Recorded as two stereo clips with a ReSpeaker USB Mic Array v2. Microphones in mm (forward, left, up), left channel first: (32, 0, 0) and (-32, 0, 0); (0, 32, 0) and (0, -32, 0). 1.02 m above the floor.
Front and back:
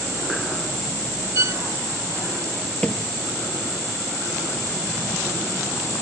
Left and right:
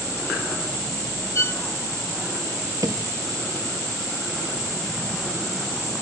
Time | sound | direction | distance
1.4 | a violin | 140° left | ?
2.8 | a thud | 75° right | ?